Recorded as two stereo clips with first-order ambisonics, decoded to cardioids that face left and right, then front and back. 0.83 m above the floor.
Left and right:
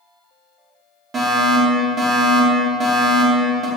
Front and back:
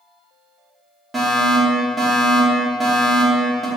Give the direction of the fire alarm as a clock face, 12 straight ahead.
4 o'clock.